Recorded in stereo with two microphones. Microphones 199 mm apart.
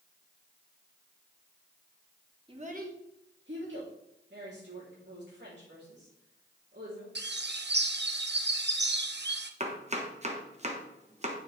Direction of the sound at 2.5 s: 25° right (ahead or behind).